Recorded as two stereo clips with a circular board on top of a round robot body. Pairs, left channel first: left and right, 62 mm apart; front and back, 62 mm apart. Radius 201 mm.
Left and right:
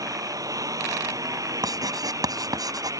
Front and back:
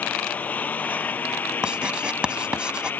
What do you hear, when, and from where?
0.0 s a lawn mower: 65° right; by 3.0 s 60° right
1.6 s writing: 105° right